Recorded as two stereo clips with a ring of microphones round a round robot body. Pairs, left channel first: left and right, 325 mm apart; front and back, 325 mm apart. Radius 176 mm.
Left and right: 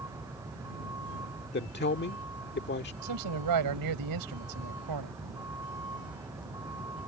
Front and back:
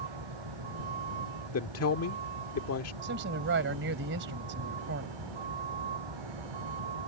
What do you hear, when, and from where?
0.0 s a vehicle: 175° right
1.5 s a man speaking: 35° left
3.0 s a man speaking: 120° right